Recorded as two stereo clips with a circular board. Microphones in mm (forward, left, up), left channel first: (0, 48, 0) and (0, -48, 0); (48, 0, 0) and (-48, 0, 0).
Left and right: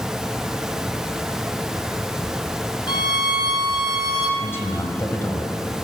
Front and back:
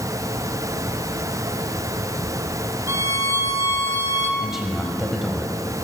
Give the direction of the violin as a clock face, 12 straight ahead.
8 o'clock.